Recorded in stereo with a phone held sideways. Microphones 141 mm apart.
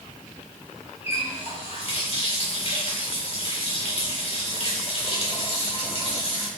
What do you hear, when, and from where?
1.0 s a running tap: 45° left (ahead or behind), 1.9 m